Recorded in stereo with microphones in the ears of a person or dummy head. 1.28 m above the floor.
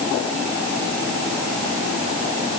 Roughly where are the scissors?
I don't hear scissors.